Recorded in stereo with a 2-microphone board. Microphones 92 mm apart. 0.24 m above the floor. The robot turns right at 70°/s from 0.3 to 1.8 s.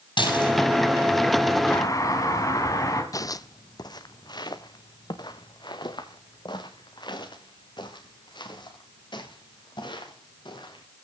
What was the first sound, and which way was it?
Dishes clattering, 65° left (ahead or behind).